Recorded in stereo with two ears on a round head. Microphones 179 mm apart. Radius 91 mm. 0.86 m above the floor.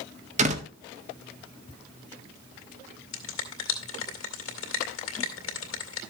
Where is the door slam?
35° right (ahead or behind), 1.5 m.